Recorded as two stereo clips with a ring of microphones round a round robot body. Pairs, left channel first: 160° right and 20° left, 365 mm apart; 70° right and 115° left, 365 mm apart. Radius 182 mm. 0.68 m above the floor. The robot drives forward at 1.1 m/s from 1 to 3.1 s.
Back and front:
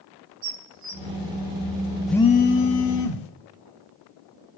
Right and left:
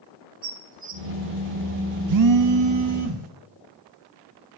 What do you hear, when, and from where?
0.4 s dishes clattering: 45° left, 2 m
2.1 s a phone buzzing: 110° left, 0.6 m; by 3.3 s 160° left, 1.4 m